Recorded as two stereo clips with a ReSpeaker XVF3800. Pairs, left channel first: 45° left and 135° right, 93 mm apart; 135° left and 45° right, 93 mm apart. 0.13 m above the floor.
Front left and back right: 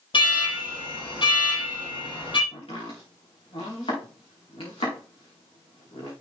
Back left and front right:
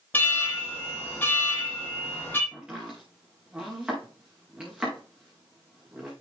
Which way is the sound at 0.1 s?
65° left.